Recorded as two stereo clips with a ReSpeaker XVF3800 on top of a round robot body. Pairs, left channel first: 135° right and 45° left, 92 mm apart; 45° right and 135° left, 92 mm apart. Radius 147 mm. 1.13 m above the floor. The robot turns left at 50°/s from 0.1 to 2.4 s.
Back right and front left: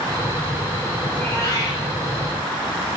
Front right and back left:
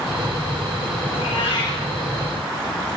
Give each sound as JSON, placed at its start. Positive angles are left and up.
{"t": 1.1, "sound": "a cat meowing", "azimuth_deg": -60, "distance_m": 5.0}